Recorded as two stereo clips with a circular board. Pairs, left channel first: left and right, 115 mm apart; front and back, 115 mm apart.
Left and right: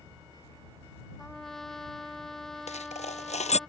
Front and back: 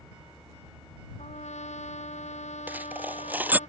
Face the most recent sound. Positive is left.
turn(degrees=105)